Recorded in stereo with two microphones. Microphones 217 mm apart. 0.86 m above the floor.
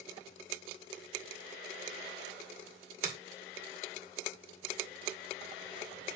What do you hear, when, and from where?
3.0 s a finger snap: 40° right (ahead or behind), 2 m